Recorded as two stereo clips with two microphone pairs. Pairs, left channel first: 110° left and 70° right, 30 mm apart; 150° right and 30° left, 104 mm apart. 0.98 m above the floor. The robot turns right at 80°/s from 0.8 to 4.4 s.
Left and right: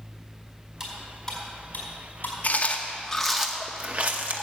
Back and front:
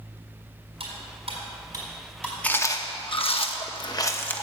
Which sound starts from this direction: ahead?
Cutlery clinking, at 0.8 s.